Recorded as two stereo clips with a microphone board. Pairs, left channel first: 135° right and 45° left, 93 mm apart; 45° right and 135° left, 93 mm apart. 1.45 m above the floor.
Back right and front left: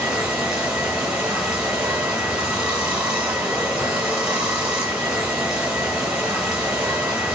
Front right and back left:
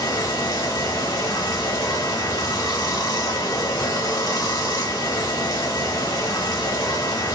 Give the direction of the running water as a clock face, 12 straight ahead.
1 o'clock.